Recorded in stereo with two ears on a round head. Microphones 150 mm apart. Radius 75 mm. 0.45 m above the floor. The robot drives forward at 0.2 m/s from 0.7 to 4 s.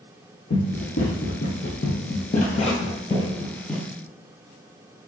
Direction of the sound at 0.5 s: 65° left (ahead or behind).